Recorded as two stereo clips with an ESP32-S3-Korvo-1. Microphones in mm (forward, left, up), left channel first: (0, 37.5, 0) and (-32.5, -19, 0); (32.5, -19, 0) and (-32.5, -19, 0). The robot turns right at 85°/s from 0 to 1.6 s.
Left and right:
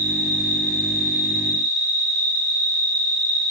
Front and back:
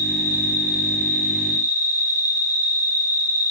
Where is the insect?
155° right, 2.5 m; by 3.5 s 20° right, 2.5 m.